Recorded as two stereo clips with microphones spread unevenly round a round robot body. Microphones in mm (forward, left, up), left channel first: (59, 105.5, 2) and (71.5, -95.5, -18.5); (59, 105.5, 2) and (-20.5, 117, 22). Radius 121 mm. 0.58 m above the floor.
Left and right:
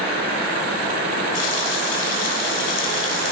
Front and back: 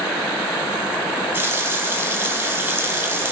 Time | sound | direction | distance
1.3 | a running tap | 110° left | 4 m